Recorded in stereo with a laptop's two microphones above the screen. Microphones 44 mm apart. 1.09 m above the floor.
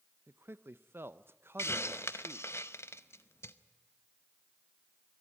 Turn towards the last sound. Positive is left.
turn(degrees=85)